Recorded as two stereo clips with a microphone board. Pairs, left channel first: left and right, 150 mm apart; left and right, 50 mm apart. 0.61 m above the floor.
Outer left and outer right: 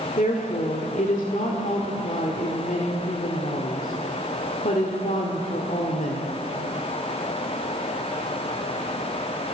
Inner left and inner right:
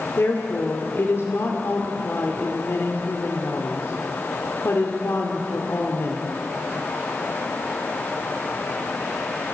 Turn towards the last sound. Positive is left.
turn(degrees=60)  # may be behind; listen again after turning